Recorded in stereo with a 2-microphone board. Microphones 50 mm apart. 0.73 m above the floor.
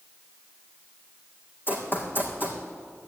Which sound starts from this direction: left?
Running footsteps, at 1.7 s.